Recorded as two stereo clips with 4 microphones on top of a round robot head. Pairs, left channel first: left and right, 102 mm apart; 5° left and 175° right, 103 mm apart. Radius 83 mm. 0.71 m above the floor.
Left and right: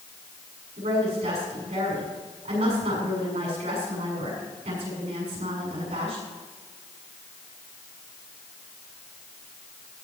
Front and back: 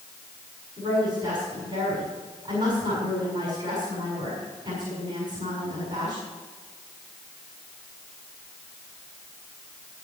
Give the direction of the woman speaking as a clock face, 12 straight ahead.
4 o'clock.